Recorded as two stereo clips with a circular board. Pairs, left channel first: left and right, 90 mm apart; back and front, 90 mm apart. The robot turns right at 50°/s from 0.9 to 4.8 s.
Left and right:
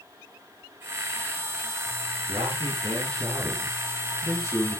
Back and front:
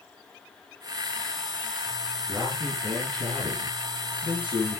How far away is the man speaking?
About 5 m.